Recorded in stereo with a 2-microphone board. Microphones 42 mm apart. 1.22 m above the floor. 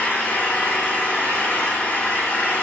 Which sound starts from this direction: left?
An engine running, at 0.0 s.